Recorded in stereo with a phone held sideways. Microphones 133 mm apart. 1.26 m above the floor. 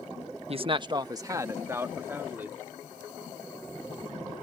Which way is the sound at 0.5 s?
45° right (ahead or behind).